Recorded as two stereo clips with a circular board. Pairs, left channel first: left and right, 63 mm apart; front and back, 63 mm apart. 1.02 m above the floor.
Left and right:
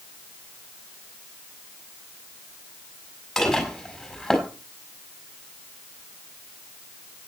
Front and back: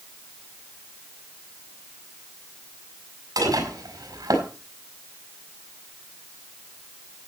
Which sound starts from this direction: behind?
Dishes clattering, at 3.4 s.